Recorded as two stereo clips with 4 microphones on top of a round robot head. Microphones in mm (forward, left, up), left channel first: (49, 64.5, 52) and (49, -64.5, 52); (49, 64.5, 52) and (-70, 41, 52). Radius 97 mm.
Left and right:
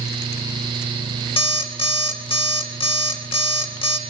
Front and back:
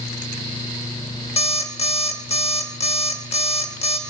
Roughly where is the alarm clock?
Ahead left.